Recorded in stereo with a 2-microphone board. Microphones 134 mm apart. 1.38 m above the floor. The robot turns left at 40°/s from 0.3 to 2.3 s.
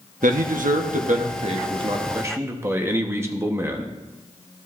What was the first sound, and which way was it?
A man speaking, 80° right.